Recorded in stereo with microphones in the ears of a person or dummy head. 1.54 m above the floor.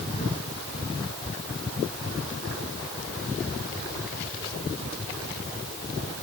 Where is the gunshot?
No gunshot in this recording.